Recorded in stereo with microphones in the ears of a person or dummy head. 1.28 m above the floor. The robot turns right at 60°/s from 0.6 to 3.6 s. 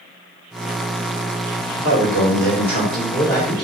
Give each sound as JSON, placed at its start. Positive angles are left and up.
{"t": 1.8, "sound": "a man speaking", "azimuth_deg": 70, "distance_m": 1.5}